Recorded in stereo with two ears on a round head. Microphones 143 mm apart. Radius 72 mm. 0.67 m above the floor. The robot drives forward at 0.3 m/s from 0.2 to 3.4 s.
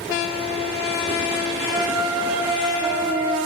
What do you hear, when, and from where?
1.7 s a flute: 25° right (ahead or behind), 0.6 m; by 3.4 s 15° right (ahead or behind), 1.0 m